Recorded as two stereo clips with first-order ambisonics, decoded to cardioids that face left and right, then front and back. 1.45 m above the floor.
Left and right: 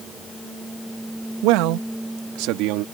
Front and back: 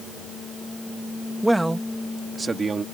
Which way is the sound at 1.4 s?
90° right.